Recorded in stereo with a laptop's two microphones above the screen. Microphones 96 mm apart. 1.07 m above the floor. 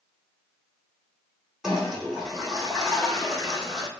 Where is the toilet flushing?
5° right (ahead or behind), 2 m.